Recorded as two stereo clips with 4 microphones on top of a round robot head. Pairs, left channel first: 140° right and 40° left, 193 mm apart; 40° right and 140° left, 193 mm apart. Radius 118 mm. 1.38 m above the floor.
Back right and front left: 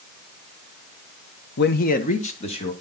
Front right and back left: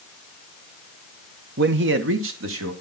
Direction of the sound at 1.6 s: Straight behind.